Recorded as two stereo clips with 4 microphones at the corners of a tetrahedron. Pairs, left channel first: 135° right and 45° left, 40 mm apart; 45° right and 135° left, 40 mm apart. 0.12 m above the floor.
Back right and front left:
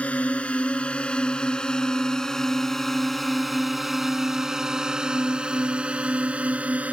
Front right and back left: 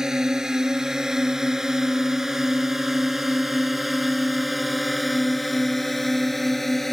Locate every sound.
0.0 s a drone: 160° right; by 7.0 s 35° left